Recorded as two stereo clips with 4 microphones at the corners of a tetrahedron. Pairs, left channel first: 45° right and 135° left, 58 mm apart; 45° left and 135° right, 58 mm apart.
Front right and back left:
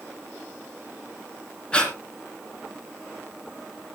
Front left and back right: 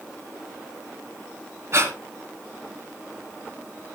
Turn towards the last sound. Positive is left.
turn(degrees=-115)